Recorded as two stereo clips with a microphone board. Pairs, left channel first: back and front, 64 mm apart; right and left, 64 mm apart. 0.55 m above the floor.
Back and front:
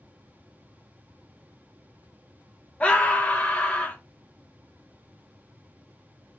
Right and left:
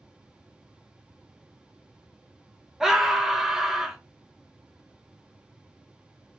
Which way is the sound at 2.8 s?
160° left.